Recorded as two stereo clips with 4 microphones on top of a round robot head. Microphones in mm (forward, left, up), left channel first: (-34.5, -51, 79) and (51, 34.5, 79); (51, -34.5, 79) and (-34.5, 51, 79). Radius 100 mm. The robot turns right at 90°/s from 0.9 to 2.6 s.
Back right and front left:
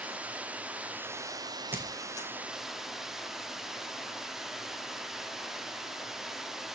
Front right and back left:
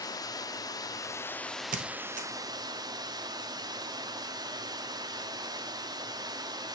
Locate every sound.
0.0 s running water: 25° right, 1.1 m; by 6.8 s 130° left, 1.1 m
1.7 s a squeak: 120° left, 1.5 m; by 2.3 s 170° left, 1.5 m